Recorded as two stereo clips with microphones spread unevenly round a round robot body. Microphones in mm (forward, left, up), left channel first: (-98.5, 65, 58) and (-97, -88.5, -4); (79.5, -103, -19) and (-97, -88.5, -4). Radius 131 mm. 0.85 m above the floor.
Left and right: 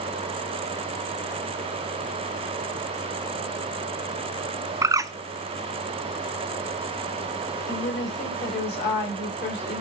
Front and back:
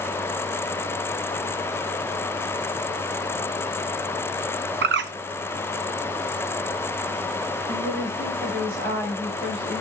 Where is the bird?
165° right, 0.6 m.